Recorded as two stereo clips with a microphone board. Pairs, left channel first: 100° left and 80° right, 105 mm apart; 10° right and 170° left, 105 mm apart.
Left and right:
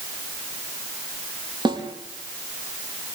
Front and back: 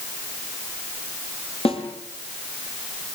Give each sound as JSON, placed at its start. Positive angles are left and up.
{"t": 1.6, "sound": "a snare drum", "azimuth_deg": -35, "distance_m": 5.5}